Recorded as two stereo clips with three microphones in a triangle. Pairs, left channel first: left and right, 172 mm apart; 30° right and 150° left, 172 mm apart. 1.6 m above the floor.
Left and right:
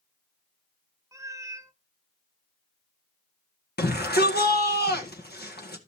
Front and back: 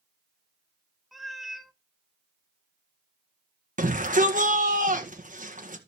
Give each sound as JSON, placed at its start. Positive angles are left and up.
{"t": 1.1, "sound": "a cat meowing", "azimuth_deg": -125, "distance_m": 0.8}
{"t": 3.8, "sound": "a shout", "azimuth_deg": 110, "distance_m": 1.9}